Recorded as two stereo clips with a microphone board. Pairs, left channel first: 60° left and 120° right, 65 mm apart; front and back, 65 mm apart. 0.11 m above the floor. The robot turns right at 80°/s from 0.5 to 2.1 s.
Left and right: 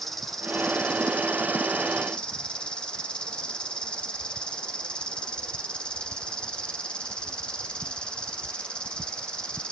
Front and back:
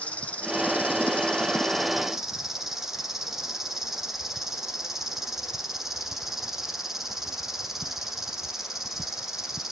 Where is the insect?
20° right, 1.3 m; by 9.7 s 105° left, 1.3 m.